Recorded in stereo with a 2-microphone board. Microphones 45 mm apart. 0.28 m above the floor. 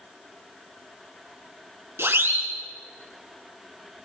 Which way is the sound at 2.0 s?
65° right (ahead or behind).